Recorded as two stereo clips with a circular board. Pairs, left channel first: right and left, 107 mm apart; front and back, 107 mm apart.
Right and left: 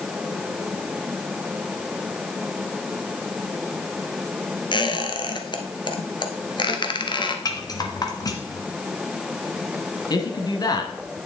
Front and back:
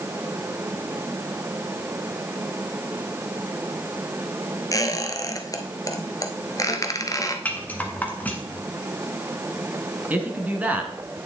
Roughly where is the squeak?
Ahead right.